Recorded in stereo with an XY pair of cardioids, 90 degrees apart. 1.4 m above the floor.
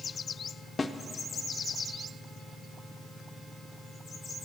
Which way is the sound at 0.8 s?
30° left.